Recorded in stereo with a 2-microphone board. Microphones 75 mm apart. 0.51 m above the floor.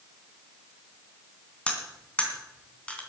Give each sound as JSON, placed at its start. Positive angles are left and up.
{"t": 1.7, "sound": "cutlery clinking", "side_deg": 15, "distance_m": 3.0}